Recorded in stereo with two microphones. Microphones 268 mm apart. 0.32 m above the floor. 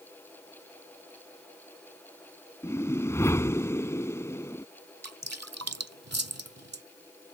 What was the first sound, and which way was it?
A whoosh, 10° left (ahead or behind).